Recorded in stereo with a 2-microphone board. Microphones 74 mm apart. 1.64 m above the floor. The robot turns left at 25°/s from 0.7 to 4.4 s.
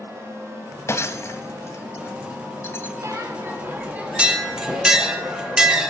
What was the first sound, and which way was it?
Breaking glass, 40° left (ahead or behind).